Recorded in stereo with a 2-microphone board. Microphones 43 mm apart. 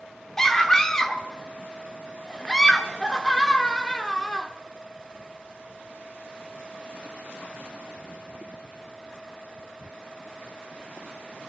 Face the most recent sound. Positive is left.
turn(degrees=10)  # may be behind; listen again after turning